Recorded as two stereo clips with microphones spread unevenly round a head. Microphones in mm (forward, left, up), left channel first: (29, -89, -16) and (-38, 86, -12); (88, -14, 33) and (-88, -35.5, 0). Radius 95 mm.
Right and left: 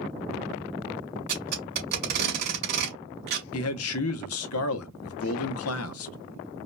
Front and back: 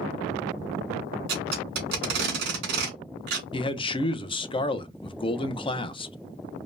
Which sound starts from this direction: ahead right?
A man speaking, at 3.5 s.